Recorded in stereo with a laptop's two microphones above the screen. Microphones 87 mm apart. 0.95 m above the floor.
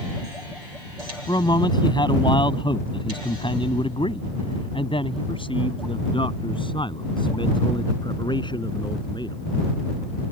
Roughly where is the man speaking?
Left.